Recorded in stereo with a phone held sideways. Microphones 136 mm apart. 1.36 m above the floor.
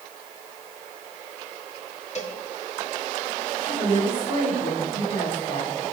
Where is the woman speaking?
40° left (ahead or behind), 9 m.